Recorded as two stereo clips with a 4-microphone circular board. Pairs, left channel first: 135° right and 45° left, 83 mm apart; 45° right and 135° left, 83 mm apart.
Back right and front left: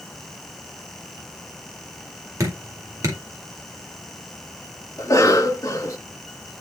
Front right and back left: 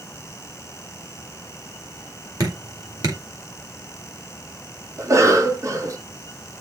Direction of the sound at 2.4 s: 95° left.